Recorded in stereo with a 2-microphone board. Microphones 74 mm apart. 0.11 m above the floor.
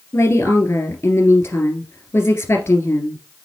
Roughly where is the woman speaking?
Left.